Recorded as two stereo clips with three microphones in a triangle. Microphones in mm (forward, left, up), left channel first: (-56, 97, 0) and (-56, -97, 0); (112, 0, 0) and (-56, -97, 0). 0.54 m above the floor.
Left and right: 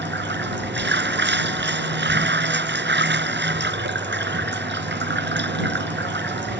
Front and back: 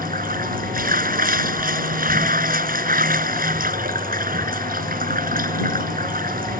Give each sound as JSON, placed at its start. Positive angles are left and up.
{"t": 0.0, "sound": "running water", "azimuth_deg": -110}